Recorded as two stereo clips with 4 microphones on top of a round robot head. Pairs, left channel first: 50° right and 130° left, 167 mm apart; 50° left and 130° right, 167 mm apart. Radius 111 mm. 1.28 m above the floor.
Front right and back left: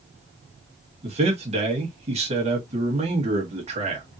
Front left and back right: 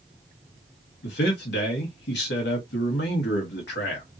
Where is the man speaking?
75° left, 1.5 m.